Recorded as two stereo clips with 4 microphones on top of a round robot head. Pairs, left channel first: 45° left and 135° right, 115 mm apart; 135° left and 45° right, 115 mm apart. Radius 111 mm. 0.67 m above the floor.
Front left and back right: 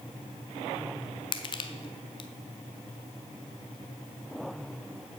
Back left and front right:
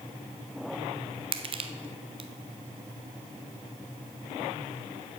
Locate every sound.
1.3 s crushing: 5° right, 0.6 m